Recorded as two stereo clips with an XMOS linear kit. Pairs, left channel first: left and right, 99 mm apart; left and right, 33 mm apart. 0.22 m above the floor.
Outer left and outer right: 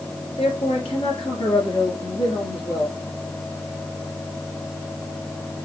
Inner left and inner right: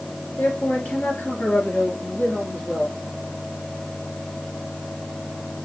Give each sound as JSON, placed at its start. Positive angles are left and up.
{"t": 0.4, "sound": "a man speaking", "side_deg": 65, "distance_m": 4.0}